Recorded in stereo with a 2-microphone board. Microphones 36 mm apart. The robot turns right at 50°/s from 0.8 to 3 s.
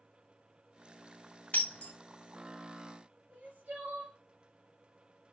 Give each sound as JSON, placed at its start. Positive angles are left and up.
{"t": 1.5, "sound": "breaking glass", "side_deg": 45, "distance_m": 2.0}
{"t": 3.3, "sound": "crying", "side_deg": -60, "distance_m": 4.0}